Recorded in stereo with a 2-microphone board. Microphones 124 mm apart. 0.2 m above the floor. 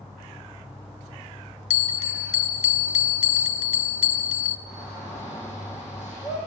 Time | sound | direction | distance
1.7 | a bell | 65° left (ahead or behind) | 0.7 m
4.7 | a shout | 70° left (ahead or behind) | 8 m